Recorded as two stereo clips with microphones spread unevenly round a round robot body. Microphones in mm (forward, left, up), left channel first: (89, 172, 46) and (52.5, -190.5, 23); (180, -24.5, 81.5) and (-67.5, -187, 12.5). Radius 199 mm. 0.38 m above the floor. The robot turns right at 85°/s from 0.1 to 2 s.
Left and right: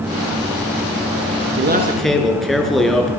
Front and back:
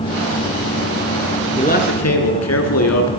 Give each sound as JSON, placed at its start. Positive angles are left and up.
{"t": 1.6, "sound": "a man speaking", "azimuth_deg": -45, "distance_m": 6.5}